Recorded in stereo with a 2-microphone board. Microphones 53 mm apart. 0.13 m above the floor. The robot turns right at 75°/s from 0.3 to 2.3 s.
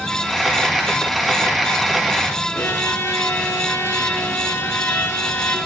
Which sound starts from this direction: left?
A violin, at 2.5 s.